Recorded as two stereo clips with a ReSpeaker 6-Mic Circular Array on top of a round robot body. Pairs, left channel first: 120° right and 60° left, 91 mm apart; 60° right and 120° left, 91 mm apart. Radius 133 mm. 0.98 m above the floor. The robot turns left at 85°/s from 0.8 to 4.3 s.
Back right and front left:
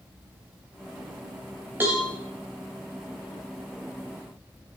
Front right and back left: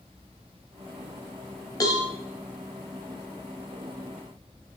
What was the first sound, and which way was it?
A cowbell, 10° right.